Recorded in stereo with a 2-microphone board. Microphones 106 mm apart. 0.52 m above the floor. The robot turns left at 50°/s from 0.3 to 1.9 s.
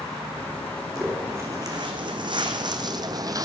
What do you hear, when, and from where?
0.9 s footsteps: 5° right (ahead or behind), 2 m; by 3.5 s 35° right (ahead or behind), 0.8 m